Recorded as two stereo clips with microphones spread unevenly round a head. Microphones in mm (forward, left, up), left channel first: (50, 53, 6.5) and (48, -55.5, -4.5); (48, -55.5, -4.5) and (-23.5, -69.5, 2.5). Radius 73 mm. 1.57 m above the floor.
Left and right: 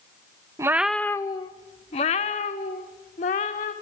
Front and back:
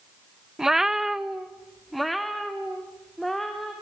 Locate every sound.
0.6 s a cat meowing: 110° right, 0.8 m; by 3.7 s 100° left, 3 m